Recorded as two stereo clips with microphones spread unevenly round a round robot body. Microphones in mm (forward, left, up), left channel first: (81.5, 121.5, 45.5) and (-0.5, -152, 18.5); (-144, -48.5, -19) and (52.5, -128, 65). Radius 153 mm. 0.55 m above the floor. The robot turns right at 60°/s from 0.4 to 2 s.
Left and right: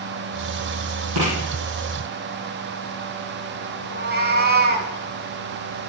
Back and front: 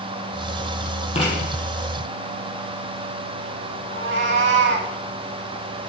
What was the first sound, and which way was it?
Writing, 140° right.